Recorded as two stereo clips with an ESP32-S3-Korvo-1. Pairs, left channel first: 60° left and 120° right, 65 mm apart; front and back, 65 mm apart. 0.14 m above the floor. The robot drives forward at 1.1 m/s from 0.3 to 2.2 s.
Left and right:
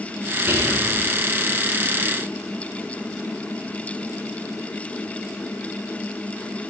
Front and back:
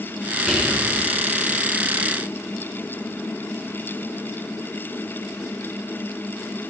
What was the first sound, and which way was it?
Whispering, 95° right.